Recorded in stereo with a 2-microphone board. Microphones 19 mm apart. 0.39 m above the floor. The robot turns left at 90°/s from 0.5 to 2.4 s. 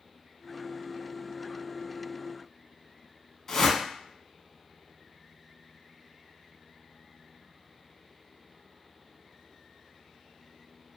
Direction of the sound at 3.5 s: 25° left (ahead or behind).